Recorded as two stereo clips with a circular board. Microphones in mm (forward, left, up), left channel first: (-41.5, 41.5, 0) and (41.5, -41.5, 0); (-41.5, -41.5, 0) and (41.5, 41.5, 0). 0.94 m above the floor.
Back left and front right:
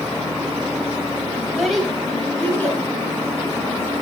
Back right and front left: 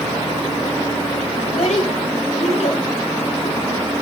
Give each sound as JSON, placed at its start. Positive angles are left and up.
{"t": 1.4, "sound": "a child speaking", "azimuth_deg": -130, "distance_m": 3.0}